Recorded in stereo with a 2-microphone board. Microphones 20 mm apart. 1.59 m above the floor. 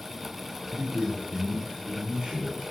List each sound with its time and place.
0.7 s a man speaking: 65° right (ahead or behind), 3 m